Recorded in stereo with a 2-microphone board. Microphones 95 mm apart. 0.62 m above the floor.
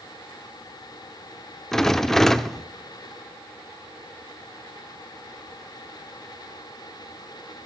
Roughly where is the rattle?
Centre.